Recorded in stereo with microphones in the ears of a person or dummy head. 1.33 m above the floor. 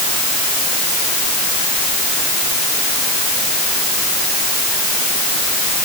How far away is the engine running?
No engine running in this recording.